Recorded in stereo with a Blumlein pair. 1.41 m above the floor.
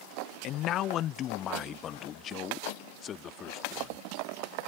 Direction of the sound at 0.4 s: 35° left.